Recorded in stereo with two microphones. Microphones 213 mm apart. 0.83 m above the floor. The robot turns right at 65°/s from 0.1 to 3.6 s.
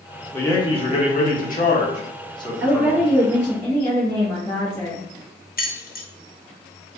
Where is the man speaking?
15° left, 1.1 m; by 3.0 s 170° right, 1.1 m.